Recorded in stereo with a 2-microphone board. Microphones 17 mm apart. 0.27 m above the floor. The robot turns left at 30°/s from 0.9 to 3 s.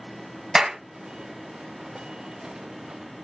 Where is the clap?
25° right (ahead or behind), 1.3 m.